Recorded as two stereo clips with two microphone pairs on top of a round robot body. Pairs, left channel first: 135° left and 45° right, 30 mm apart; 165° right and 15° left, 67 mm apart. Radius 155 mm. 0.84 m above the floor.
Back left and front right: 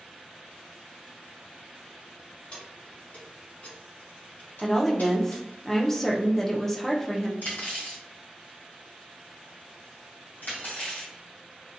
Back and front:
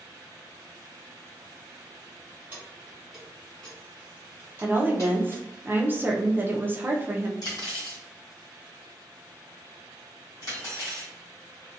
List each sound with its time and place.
2.5 s keys jangling: 80° left, 1.2 m; by 5.6 s 160° left, 1.5 m
4.6 s a woman speaking: 60° left, 0.8 m
7.4 s cutlery clinking: 160° left, 1.5 m